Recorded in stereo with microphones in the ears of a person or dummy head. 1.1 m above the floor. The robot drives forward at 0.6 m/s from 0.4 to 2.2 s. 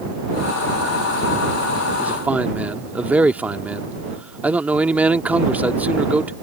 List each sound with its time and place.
2.0 s a man speaking: 5° right (ahead or behind)